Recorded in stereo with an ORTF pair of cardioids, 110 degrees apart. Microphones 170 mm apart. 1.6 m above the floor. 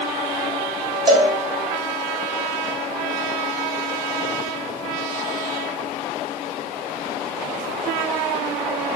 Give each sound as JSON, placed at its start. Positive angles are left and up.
{"t": 1.1, "sound": "a cowbell", "azimuth_deg": -25, "distance_m": 0.7}